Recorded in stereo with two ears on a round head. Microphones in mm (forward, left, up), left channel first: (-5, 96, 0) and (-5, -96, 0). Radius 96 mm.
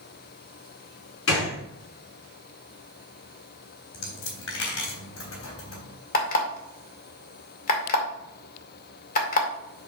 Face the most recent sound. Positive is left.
turn(degrees=40)  # may be behind; listen again after turning